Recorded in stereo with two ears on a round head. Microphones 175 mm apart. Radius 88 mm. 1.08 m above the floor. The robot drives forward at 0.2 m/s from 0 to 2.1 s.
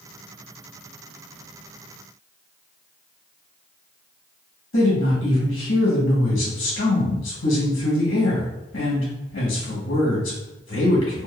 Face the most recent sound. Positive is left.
turn(degrees=65)  # may be behind; listen again after turning